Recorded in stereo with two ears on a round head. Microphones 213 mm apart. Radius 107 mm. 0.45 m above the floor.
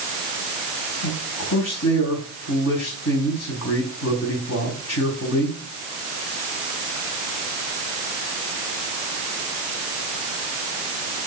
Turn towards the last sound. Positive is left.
turn(degrees=70)  # may be behind; listen again after turning